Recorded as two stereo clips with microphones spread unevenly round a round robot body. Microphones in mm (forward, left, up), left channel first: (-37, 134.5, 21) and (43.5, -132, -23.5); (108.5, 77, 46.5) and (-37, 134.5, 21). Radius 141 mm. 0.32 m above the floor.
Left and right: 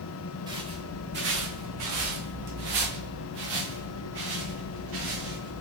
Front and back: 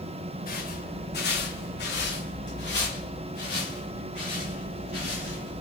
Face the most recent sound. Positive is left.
turn(degrees=-100)